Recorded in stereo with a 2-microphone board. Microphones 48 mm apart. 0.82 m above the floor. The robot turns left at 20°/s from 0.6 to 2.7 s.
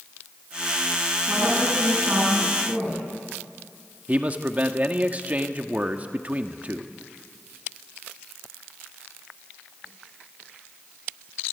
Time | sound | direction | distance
1.3 | a woman speaking | 55° right (ahead or behind) | 6.5 m
4.1 | a man speaking | 30° right (ahead or behind) | 1.4 m